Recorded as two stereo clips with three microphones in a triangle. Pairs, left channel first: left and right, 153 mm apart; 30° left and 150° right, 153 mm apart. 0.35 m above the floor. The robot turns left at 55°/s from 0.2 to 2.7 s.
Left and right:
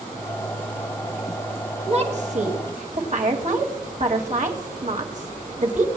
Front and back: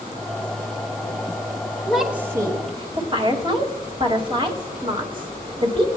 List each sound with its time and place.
1.9 s a woman speaking: 55° right, 2 m; by 5.9 s 100° right, 2 m